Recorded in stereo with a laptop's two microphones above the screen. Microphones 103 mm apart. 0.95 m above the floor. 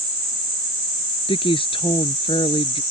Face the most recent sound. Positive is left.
turn(degrees=55)  # may be behind; listen again after turning